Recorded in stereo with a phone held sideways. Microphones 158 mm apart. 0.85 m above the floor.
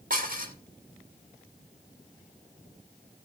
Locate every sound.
0.1 s dishes clattering: 60° right (ahead or behind), 1.5 m